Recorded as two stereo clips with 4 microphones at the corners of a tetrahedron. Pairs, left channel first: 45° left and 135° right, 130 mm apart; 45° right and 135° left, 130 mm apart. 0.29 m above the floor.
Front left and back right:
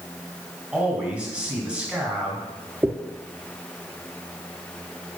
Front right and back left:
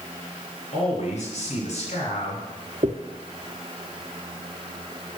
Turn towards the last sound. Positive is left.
turn(degrees=155)